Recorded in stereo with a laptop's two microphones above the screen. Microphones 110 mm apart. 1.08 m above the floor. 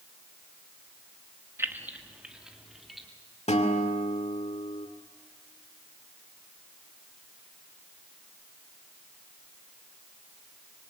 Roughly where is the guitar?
Left.